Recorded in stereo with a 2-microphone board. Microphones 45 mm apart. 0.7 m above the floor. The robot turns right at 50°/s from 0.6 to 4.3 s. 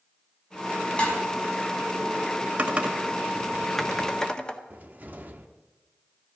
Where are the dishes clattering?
25° left (ahead or behind), 4 m; by 1.2 s 35° left (ahead or behind), 4 m.